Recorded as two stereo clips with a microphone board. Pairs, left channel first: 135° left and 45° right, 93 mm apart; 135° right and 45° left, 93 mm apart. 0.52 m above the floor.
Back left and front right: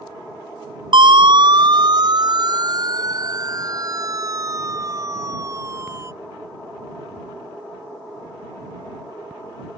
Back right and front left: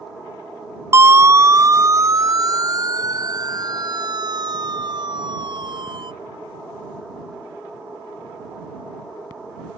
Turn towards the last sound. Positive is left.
turn(degrees=15)